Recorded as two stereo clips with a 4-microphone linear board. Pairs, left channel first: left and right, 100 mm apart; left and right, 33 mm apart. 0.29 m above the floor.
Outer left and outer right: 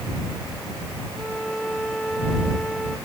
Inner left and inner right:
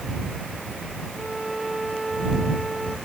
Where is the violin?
5° left (ahead or behind).